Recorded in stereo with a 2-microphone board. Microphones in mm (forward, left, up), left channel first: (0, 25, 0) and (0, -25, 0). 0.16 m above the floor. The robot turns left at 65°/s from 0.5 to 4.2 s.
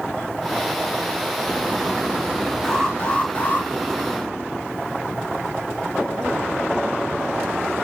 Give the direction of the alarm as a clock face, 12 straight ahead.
6 o'clock.